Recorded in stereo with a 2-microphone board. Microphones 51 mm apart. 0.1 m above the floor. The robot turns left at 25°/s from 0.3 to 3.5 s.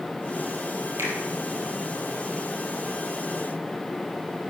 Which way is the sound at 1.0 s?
60° right (ahead or behind).